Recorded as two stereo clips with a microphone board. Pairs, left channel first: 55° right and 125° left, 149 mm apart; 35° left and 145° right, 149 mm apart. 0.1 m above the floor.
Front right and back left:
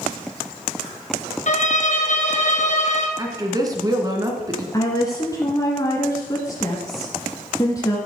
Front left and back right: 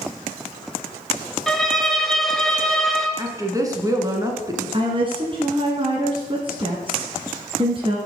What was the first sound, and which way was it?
A violin, 55° right.